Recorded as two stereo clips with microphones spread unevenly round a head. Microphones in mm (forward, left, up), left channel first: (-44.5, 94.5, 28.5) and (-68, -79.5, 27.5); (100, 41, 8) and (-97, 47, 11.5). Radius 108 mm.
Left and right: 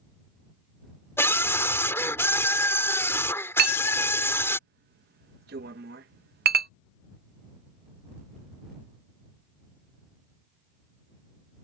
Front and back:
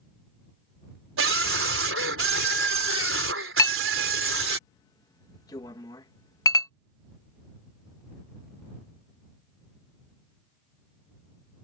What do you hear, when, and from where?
1.2 s a scream: 160° left
3.6 s a clink: 75° right